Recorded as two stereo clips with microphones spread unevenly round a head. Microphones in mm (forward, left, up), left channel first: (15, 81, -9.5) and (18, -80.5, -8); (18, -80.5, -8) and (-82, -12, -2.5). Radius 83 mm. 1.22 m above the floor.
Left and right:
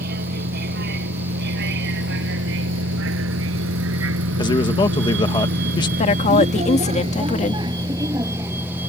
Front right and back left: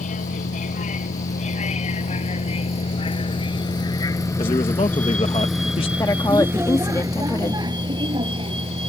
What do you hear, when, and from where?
0.0 s a vehicle: 55° right; by 8.9 s 170° right
4.4 s a man speaking: 25° left
6.0 s a woman speaking: 40° left